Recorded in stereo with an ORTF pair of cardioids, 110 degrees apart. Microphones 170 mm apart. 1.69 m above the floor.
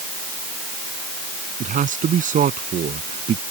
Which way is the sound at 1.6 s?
50° right.